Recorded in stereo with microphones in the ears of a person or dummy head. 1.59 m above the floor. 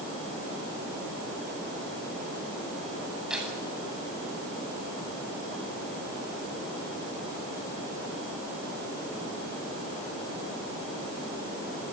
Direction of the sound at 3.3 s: Centre (ahead or behind).